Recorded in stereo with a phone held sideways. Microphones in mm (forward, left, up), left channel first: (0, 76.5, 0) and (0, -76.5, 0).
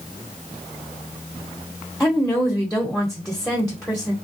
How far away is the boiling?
No boiling in this recording.